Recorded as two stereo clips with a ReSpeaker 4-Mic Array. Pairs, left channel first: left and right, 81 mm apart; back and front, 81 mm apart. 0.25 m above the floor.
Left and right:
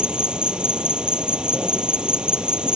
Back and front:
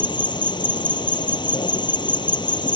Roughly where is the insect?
Behind.